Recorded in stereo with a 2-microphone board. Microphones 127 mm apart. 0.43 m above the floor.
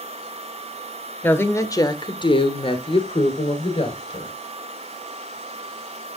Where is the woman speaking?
15° left (ahead or behind), 1.2 m; by 4.3 s 45° left (ahead or behind), 2 m.